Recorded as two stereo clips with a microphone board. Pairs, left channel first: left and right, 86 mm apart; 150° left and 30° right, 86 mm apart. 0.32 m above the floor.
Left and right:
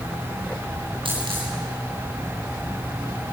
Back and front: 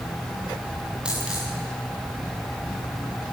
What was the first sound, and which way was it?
A dropped coin, 110° right.